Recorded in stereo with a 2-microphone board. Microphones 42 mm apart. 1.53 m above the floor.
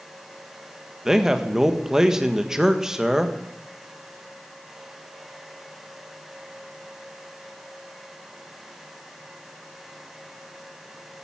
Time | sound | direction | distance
1.1 | a man speaking | 10° right (ahead or behind) | 1.5 m